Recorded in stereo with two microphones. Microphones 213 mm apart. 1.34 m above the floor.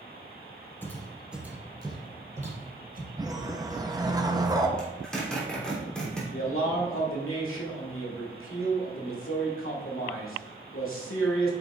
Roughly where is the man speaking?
Left.